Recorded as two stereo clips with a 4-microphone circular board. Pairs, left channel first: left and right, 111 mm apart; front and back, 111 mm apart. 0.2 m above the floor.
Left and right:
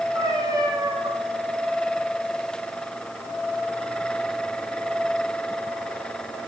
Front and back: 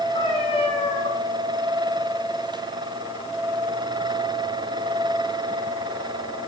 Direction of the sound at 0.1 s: 35° right.